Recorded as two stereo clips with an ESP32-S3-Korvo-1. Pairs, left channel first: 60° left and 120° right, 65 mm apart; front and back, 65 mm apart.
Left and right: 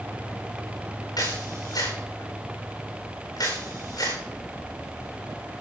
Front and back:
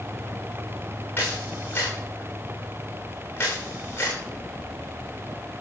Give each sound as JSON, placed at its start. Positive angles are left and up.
{"t": 1.2, "sound": "a camera shutter", "azimuth_deg": 60, "distance_m": 9.0}